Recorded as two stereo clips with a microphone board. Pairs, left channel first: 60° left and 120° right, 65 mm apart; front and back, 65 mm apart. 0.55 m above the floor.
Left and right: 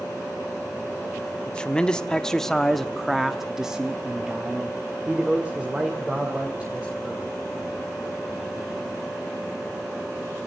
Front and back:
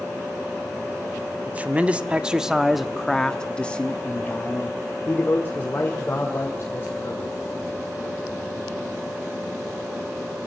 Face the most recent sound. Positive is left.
turn(degrees=-50)